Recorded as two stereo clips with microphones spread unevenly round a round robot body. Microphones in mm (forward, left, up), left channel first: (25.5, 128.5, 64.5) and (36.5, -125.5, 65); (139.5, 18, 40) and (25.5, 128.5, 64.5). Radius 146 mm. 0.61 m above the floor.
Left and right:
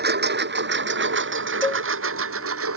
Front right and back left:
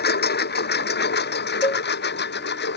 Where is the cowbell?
10° left.